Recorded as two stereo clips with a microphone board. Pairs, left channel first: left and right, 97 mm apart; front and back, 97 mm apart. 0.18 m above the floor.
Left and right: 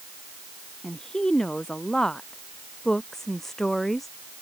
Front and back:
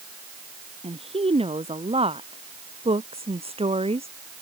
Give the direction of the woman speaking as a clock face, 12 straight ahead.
6 o'clock.